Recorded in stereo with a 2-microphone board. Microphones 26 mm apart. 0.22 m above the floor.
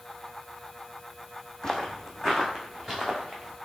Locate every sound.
1.6 s footsteps: 30° left (ahead or behind), 0.7 m; by 3.5 s 5° left (ahead or behind), 1.7 m